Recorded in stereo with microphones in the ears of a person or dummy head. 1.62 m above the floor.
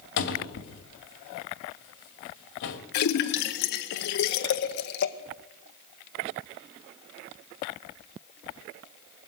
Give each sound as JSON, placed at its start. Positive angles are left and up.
{"t": 0.2, "sound": "a cupboard door", "side_deg": 60, "distance_m": 1.8}
{"t": 2.9, "sound": "a splash", "side_deg": 65, "distance_m": 0.8}